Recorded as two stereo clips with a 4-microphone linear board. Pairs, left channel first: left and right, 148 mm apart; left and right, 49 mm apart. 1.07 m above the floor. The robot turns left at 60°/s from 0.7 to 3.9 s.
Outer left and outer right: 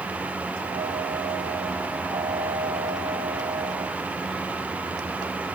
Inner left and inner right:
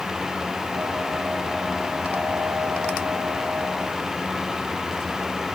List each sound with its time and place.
Only background noise.